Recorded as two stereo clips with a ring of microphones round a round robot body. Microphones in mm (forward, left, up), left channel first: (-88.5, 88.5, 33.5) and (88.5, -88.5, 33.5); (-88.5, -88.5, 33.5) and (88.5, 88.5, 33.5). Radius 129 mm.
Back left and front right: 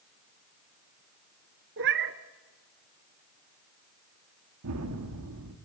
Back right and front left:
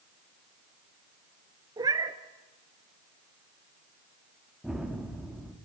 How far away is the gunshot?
About 1.7 m.